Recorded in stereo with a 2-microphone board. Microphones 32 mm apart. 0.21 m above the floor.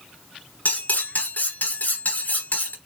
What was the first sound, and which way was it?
Cutlery clinking, 60° left (ahead or behind).